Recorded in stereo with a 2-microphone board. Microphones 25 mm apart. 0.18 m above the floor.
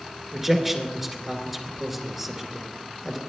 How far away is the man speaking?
About 2 m.